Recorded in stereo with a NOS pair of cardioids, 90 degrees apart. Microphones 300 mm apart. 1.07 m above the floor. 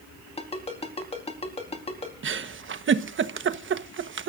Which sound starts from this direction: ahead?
A ringtone, at 0.4 s.